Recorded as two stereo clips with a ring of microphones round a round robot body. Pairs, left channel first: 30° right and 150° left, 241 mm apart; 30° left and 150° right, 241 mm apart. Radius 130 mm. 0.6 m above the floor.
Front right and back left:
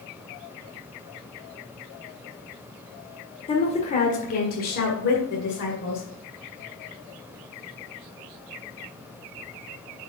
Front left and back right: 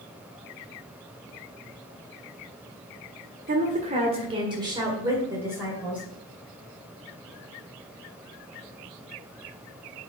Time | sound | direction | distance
3.5 | a woman speaking | 95° right | 1.6 m